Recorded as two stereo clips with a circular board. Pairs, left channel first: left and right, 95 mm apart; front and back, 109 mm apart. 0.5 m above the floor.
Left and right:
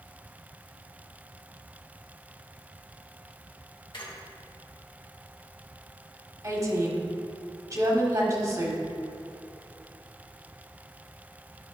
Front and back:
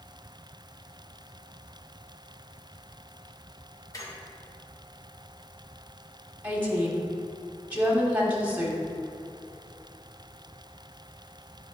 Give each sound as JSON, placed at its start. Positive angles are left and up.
{"t": 3.9, "sound": "a squeak", "azimuth_deg": 55, "distance_m": 1.3}
{"t": 6.4, "sound": "a woman speaking", "azimuth_deg": -115, "distance_m": 1.4}